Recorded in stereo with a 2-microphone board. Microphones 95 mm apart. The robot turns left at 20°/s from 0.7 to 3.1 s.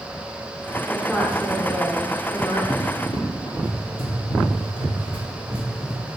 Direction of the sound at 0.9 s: 170° left.